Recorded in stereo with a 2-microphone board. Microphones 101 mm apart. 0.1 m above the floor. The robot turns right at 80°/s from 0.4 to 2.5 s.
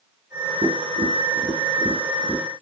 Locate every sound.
0.6 s tapping: 65° right (ahead or behind), 0.8 m; by 2.4 s 35° left (ahead or behind), 0.8 m